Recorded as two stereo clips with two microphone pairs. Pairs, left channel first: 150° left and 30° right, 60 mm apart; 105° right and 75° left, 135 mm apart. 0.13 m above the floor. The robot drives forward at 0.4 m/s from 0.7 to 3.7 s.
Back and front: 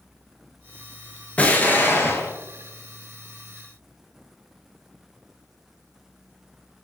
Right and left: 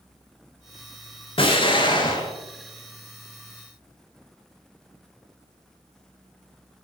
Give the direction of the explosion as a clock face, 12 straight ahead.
5 o'clock.